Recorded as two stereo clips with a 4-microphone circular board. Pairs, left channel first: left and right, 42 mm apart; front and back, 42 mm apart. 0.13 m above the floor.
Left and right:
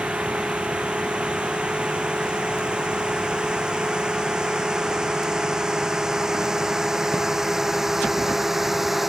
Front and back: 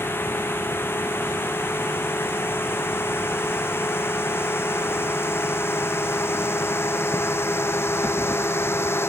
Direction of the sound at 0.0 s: 25° right.